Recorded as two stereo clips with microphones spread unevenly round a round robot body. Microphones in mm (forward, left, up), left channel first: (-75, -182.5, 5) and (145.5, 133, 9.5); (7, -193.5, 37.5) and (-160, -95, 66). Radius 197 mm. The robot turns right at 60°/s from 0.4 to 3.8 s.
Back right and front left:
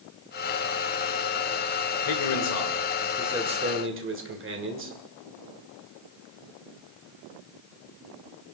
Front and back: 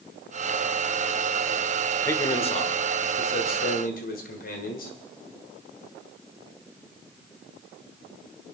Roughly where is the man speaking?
Right.